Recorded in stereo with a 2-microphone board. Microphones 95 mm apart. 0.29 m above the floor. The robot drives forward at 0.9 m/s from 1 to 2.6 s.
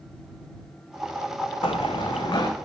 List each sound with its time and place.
1.6 s running footsteps: 70° left (ahead or behind), 0.8 m; by 2.5 s 45° left (ahead or behind), 1.1 m